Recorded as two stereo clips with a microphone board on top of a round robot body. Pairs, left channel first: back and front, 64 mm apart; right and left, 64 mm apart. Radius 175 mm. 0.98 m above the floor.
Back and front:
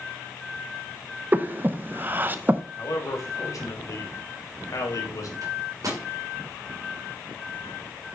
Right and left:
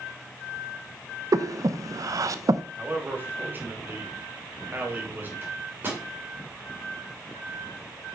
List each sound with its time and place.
1.3 s breathing: 60° left, 0.8 m
2.8 s a man speaking: 145° left, 2.5 m
5.4 s a microwave: 30° left, 3 m